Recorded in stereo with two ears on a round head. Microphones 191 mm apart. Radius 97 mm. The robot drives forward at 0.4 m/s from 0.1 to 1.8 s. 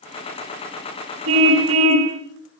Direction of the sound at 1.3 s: 60° right (ahead or behind).